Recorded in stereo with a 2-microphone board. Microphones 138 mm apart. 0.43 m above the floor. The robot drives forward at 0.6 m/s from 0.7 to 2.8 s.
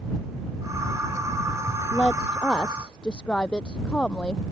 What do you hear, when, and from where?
1.9 s a woman speaking: 5° left (ahead or behind)